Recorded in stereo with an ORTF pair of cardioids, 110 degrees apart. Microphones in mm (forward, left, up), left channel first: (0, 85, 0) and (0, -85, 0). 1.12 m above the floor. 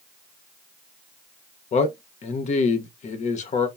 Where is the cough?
I don't hear a cough.